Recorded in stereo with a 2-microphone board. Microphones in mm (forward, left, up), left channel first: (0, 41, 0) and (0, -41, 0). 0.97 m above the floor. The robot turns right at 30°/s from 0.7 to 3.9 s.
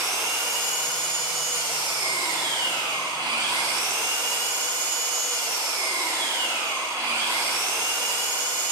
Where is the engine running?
140° right, 1.5 m; by 8.7 s 40° right, 1.5 m.